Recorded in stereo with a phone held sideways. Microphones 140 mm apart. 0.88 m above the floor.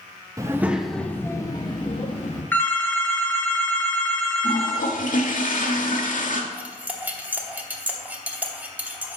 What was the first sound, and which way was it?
A child speaking, 25° right (ahead or behind).